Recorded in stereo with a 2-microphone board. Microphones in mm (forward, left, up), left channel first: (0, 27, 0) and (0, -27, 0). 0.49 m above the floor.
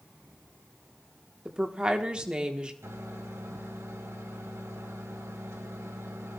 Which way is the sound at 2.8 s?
70° right (ahead or behind).